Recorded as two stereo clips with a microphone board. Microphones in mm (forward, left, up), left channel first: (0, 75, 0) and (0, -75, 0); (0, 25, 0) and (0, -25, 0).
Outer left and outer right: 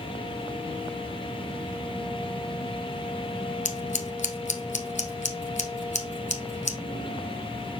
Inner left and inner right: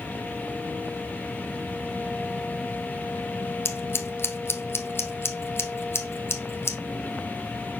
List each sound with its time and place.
3.6 s scissors: 55° left (ahead or behind), 1.1 m